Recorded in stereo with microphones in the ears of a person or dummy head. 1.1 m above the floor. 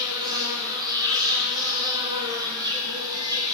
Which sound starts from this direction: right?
An insect, at 0.0 s.